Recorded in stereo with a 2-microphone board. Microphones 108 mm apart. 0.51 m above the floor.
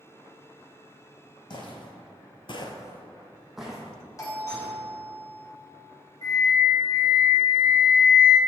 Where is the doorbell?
30° left (ahead or behind), 1.5 m.